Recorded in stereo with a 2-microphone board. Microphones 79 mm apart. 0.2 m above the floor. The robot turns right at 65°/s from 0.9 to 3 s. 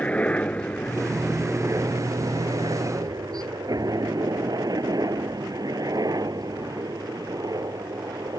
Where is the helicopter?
15° left (ahead or behind); by 8.4 s 50° right (ahead or behind).